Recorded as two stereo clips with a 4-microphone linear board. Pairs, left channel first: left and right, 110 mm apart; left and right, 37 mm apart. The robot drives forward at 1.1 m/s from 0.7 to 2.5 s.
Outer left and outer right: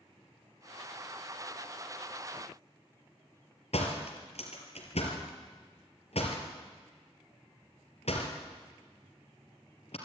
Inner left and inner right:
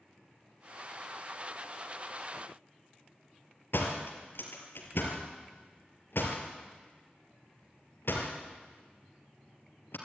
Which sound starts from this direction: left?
A door slam, at 3.7 s.